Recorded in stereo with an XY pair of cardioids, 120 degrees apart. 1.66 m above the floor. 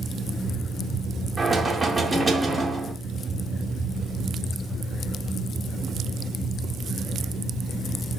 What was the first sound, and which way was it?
Knocking, 10° right.